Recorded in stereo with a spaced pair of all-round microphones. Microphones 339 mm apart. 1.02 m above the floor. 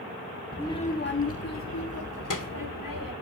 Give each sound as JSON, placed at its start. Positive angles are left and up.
{"t": 0.5, "sound": "a child speaking", "side_deg": 0, "distance_m": 0.9}